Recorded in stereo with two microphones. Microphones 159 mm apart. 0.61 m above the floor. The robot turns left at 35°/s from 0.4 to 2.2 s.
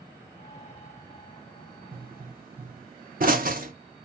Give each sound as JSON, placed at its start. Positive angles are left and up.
{"t": 1.9, "sound": "a pop", "side_deg": -65, "distance_m": 0.6}